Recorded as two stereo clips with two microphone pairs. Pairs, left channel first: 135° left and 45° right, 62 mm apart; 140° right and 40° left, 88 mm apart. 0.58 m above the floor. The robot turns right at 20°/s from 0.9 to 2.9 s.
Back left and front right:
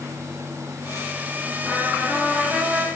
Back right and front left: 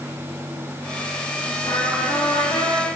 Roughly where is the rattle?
No rattle in this recording.